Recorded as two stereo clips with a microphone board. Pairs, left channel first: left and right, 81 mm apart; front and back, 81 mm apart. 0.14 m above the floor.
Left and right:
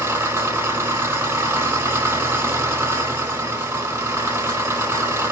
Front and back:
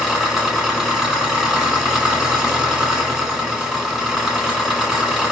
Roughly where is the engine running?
Right.